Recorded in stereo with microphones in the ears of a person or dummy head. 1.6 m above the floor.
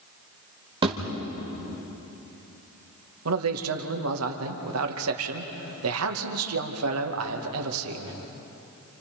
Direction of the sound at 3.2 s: 85° right.